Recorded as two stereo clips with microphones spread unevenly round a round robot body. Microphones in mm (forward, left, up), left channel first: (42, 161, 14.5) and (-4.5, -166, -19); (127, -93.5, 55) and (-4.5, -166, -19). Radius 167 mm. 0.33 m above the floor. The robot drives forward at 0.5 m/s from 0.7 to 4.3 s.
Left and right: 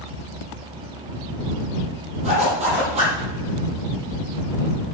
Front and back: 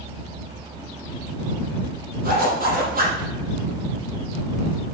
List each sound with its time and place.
2.2 s a zipper: 170° right, 6 m